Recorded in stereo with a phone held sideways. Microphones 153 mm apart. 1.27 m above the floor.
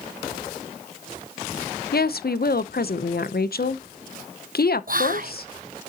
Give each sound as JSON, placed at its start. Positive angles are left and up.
{"t": 1.9, "sound": "a woman speaking", "side_deg": 75, "distance_m": 0.7}
{"t": 4.9, "sound": "whispering", "side_deg": -60, "distance_m": 0.9}